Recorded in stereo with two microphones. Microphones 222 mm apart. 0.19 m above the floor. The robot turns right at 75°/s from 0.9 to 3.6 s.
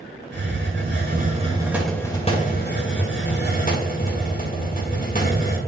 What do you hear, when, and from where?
0.3 s a hiss: 70° right, 2.5 m; by 5.6 s 130° left, 2.5 m